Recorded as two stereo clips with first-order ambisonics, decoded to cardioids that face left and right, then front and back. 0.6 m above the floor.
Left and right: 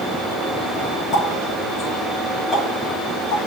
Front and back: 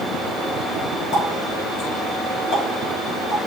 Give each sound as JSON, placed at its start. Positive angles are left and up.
{"t": 1.1, "sound": "a running tap", "azimuth_deg": 35, "distance_m": 6.0}